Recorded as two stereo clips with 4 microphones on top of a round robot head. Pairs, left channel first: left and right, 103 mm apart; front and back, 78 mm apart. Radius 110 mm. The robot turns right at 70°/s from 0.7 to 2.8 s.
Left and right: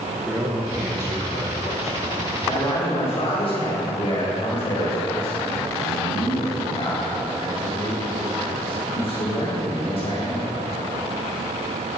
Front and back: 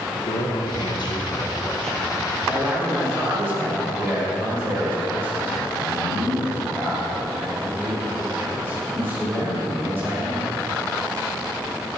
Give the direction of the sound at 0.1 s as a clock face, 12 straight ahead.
12 o'clock.